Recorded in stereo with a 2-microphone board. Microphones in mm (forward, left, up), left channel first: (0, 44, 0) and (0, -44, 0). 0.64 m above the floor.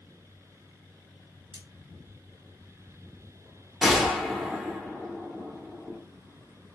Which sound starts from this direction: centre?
A gunshot, at 3.8 s.